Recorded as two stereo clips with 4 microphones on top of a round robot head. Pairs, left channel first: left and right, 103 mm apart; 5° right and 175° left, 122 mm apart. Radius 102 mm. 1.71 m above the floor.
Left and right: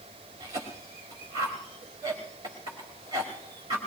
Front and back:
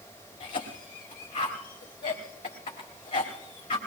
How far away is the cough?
About 1.7 m.